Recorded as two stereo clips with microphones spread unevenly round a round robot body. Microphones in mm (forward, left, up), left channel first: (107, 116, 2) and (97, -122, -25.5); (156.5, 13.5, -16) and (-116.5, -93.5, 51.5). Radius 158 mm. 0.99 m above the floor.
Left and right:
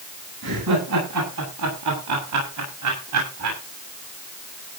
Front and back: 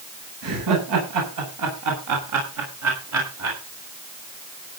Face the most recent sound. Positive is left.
turn(degrees=-115)